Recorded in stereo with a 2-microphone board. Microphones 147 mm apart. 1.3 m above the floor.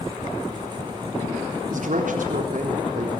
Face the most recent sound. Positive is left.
turn(degrees=-60)  # may be behind; listen again after turning